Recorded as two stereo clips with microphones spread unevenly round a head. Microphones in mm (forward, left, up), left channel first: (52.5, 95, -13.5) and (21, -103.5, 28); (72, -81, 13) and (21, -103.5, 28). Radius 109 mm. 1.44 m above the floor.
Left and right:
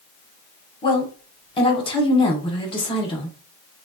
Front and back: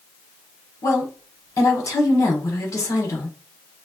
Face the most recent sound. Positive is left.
turn(degrees=20)